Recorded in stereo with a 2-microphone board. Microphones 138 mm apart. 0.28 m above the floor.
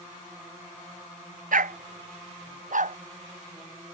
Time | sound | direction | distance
1.5 | a dog barking | 85° right | ?